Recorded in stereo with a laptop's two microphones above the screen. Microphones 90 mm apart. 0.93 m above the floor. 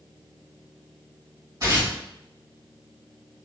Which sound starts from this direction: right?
Tearing paper, at 1.6 s.